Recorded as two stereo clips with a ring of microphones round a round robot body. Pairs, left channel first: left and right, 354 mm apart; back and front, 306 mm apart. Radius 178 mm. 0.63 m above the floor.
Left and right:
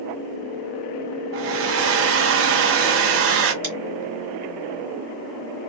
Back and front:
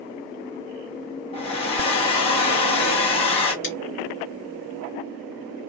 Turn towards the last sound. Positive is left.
turn(degrees=-130)